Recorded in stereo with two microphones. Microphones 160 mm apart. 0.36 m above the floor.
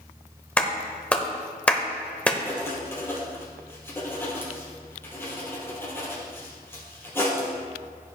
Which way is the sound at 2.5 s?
15° left (ahead or behind).